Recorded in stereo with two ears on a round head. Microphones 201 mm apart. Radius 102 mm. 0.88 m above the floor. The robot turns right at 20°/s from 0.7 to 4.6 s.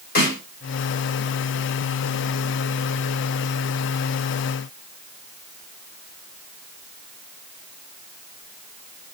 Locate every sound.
0.1 s a snare drum: 45° left (ahead or behind), 1.9 m